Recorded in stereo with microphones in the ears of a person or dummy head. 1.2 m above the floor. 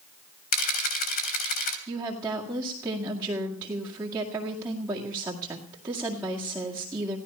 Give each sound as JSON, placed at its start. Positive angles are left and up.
{"t": 0.5, "sound": "a camera shutter", "side_deg": 45, "distance_m": 3.0}
{"t": 1.9, "sound": "a woman speaking", "side_deg": -15, "distance_m": 2.0}